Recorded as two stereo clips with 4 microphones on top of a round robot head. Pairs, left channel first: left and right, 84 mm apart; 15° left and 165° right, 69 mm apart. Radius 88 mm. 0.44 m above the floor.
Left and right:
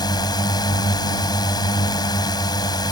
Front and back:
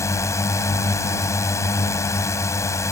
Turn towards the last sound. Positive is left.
turn(degrees=55)